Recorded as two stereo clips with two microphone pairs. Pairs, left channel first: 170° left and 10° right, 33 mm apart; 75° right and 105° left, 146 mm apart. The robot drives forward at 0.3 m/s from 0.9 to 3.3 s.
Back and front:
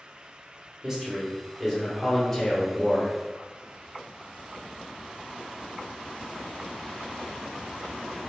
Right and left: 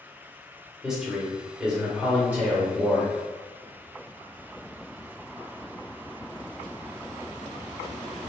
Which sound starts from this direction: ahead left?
A man speaking, at 0.8 s.